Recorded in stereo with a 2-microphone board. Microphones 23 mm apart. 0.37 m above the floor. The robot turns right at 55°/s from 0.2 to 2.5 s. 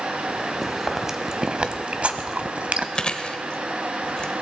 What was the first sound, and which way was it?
Chewing, 5° left (ahead or behind).